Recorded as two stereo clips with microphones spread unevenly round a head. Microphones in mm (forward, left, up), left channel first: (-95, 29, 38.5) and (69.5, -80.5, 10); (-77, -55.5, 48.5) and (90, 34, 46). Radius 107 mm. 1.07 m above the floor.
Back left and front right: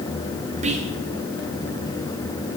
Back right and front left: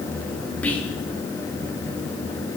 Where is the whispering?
70° right, 1.0 m.